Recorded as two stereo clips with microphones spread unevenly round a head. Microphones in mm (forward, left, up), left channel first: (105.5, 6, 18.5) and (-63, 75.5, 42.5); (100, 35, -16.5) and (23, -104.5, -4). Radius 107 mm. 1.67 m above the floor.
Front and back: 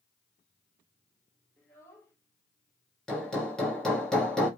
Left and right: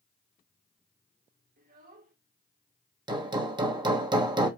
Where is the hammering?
120° right, 1.2 m.